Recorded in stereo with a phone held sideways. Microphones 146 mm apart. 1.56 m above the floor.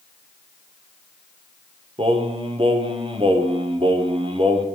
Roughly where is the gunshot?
No gunshot in this recording.